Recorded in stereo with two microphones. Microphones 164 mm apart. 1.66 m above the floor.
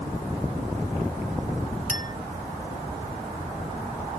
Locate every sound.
1.9 s a clink: 55° left (ahead or behind)